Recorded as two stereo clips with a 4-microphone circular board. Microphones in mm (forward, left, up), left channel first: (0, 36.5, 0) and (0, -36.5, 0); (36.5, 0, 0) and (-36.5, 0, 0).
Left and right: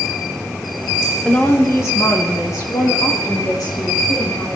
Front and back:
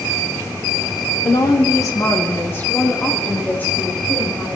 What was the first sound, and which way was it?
A woman speaking, 15° left.